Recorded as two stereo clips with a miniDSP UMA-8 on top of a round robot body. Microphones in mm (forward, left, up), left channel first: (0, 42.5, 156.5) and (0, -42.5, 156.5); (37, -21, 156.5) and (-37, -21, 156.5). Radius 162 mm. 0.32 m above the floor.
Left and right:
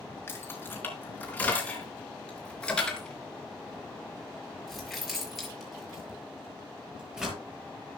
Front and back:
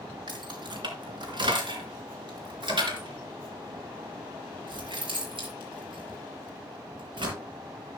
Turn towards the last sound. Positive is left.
turn(degrees=-175)